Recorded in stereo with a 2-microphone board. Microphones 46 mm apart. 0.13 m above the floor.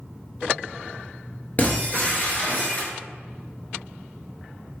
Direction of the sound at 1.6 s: 40° left (ahead or behind).